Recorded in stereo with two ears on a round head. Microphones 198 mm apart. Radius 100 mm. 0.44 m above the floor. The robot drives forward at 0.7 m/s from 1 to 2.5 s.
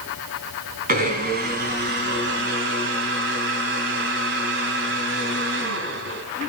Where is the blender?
40° right (ahead or behind), 3 m; by 6.2 s 55° right (ahead or behind), 2.5 m.